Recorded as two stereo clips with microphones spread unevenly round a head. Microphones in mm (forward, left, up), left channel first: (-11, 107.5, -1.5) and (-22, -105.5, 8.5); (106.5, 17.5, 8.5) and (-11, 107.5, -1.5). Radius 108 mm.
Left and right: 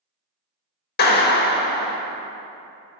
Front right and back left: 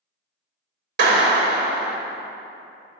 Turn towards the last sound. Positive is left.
turn(degrees=135)